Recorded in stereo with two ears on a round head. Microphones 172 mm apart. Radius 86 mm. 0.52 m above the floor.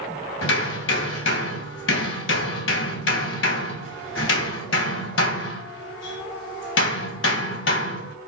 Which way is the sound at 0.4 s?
70° left (ahead or behind).